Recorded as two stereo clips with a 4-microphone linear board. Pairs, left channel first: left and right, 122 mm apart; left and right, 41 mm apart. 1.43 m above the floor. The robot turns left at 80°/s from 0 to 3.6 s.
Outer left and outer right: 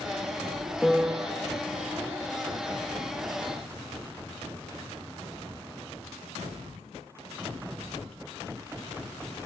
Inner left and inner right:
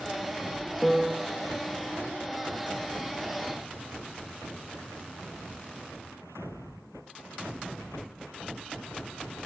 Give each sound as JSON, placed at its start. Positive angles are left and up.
{"t": 0.8, "sound": "a piano", "azimuth_deg": 10, "distance_m": 0.6}